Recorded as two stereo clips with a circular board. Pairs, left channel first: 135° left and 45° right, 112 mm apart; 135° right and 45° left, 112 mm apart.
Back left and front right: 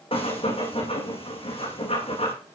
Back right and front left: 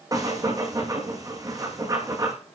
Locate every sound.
0.1 s breathing: 100° left, 8 m